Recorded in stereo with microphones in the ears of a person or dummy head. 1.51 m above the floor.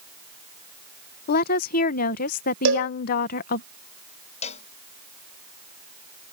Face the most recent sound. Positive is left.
turn(degrees=40)  # may be behind; listen again after turning